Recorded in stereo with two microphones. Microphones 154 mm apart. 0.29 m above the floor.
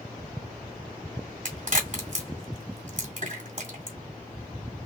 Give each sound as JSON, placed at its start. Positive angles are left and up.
{"t": 1.4, "sound": "a crack", "side_deg": -50, "distance_m": 1.8}